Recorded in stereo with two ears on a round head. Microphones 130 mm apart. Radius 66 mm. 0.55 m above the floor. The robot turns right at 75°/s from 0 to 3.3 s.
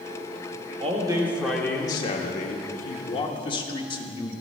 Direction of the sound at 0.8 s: 50° right.